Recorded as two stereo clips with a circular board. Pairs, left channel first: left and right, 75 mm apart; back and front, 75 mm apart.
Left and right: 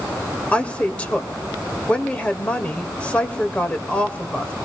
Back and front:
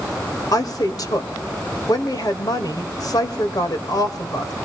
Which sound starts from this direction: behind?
A woman speaking, at 0.5 s.